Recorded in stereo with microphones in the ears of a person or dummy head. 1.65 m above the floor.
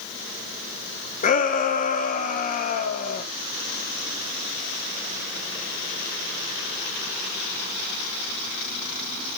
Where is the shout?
50° left (ahead or behind), 3 m.